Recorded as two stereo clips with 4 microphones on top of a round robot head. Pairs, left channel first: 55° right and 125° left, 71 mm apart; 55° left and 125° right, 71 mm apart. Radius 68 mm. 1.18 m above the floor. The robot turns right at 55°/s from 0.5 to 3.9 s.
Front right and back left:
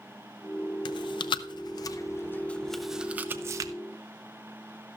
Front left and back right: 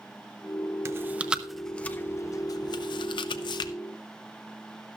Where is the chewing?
75° right, 0.6 m; by 3.7 s 85° left, 0.6 m.